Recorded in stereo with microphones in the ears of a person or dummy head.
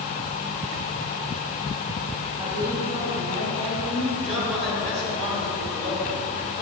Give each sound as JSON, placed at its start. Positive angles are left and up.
{"t": 2.4, "sound": "a woman speaking", "side_deg": -20, "distance_m": 1.7}
{"t": 4.2, "sound": "a man speaking", "side_deg": -35, "distance_m": 3.0}